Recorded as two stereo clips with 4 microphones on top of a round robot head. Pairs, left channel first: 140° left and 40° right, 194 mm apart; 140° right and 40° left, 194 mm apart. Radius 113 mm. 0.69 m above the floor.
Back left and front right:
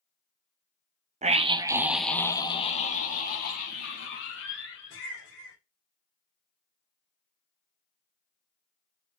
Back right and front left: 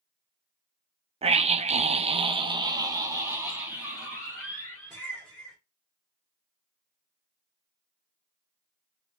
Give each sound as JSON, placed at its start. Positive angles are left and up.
{"t": 1.2, "sound": "a scream", "azimuth_deg": -5, "distance_m": 1.1}